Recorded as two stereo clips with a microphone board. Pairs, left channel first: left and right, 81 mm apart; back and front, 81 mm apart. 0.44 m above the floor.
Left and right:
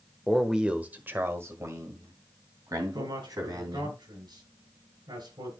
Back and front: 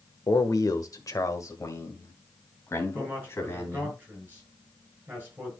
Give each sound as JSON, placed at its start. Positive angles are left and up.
{"t": 0.3, "sound": "a man speaking", "azimuth_deg": 180, "distance_m": 1.1}
{"t": 2.9, "sound": "a man speaking", "azimuth_deg": -70, "distance_m": 7.0}